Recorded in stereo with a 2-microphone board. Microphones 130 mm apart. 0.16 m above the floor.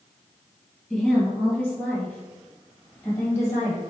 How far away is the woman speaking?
About 2.5 m.